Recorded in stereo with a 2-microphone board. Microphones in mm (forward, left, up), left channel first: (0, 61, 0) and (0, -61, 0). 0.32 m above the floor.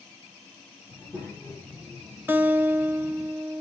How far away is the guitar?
About 1.0 m.